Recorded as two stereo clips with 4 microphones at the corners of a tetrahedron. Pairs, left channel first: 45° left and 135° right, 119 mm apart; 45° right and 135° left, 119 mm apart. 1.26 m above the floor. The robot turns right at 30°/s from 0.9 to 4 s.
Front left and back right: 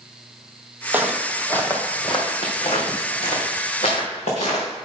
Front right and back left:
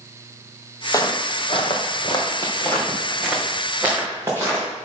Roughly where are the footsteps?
Right.